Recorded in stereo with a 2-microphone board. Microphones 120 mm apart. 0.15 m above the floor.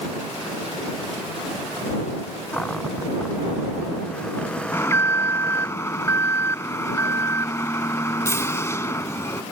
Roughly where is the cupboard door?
Centre.